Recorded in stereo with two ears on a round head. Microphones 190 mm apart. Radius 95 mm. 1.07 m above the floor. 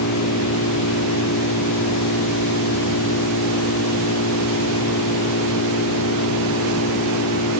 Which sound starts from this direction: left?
An engine running, at 0.0 s.